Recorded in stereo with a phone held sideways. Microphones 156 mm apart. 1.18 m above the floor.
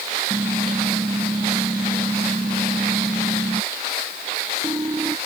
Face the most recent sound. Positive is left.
turn(degrees=-25)  # may be behind; listen again after turning